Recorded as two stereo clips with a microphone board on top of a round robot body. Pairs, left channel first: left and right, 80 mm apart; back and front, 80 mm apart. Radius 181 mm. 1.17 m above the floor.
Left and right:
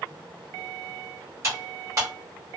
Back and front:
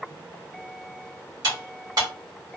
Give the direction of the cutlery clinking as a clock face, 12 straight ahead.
1 o'clock.